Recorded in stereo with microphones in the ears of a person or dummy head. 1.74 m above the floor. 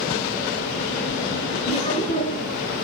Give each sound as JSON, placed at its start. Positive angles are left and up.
{"t": 1.7, "sound": "laughter", "side_deg": 30, "distance_m": 2.5}